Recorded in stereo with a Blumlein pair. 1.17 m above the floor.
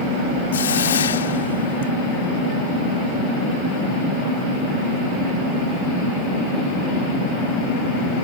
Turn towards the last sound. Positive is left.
turn(degrees=65)